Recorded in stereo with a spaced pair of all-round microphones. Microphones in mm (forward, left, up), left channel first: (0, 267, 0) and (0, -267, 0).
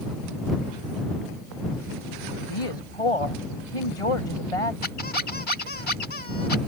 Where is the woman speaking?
80° left.